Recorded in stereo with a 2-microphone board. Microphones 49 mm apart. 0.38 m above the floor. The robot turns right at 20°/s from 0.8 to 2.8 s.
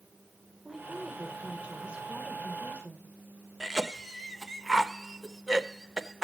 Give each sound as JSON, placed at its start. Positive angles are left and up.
{"t": 0.7, "sound": "a woman speaking", "azimuth_deg": -155, "distance_m": 1.5}
{"t": 3.6, "sound": "a cough", "side_deg": -10, "distance_m": 0.8}